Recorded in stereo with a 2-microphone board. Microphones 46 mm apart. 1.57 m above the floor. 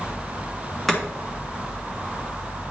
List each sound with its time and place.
0.9 s chopping: 10° left (ahead or behind), 2.5 m